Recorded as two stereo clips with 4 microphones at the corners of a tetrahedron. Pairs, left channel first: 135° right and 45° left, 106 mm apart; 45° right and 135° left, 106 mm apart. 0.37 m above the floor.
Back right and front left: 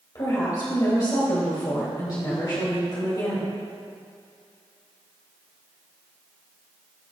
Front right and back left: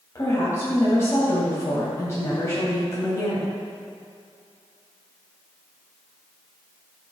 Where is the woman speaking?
100° right, 2 m.